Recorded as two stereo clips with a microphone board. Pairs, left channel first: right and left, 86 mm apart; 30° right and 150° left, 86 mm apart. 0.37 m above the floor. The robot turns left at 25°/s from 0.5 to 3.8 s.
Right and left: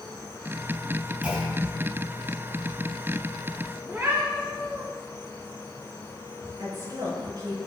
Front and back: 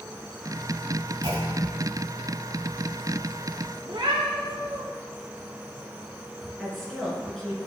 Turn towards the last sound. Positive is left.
turn(degrees=55)